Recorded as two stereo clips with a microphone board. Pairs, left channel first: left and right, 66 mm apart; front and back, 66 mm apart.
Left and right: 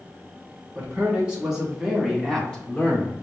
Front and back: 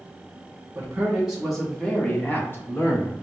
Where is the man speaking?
135° right, 1.1 m; by 3.1 s 20° left, 1.4 m.